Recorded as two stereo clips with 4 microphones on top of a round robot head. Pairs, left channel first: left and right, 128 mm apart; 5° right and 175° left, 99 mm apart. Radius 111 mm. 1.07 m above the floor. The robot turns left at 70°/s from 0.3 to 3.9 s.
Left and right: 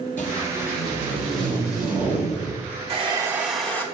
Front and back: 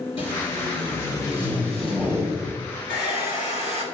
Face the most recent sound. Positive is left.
turn(degrees=155)